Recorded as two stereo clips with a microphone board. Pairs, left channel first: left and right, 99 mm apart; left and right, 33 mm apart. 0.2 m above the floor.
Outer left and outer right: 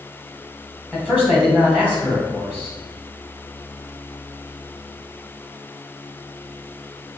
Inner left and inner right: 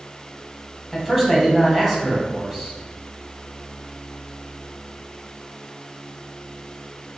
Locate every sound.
0.9 s a man speaking: 15° right (ahead or behind), 1.5 m